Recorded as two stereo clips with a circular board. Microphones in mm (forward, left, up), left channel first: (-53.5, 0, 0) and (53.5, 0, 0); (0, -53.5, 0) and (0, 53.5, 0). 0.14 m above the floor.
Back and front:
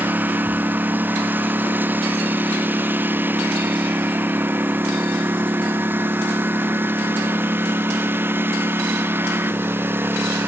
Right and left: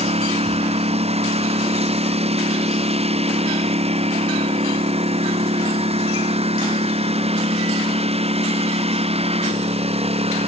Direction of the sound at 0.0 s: 75° left.